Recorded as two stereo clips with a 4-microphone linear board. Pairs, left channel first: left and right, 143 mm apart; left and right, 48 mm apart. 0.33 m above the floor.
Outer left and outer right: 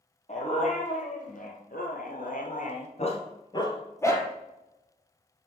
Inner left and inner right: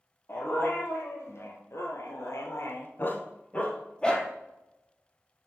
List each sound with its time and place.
0.3 s a dog barking: 55° left (ahead or behind), 2.5 m; by 4.3 s 15° left (ahead or behind), 2 m